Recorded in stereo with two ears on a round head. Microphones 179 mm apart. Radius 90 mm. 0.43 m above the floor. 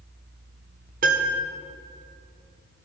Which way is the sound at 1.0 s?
45° right (ahead or behind).